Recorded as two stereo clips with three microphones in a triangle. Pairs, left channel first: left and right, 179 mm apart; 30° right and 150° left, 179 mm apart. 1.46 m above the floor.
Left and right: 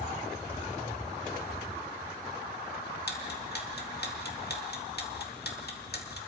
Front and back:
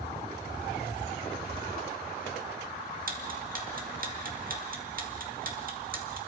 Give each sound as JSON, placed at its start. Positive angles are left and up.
{"t": 3.1, "sound": "ticking", "azimuth_deg": 115, "distance_m": 2.0}